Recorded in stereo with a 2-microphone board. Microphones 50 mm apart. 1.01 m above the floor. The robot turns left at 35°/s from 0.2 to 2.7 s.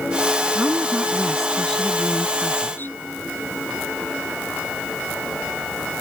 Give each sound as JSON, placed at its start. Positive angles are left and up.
{"t": 0.6, "sound": "a woman speaking", "azimuth_deg": -150}